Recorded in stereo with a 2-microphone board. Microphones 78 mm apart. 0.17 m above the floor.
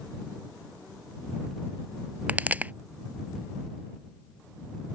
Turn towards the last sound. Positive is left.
turn(degrees=-20)  # may be behind; listen again after turning